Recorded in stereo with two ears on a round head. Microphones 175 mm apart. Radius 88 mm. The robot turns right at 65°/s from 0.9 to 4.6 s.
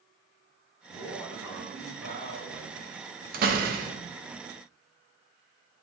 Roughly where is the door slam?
Right.